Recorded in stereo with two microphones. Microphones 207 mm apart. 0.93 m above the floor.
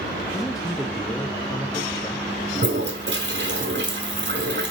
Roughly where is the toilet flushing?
Right.